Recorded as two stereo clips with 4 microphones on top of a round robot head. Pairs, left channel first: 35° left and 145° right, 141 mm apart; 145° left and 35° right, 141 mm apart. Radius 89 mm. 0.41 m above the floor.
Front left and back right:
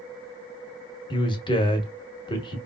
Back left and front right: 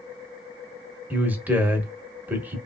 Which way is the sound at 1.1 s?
35° left.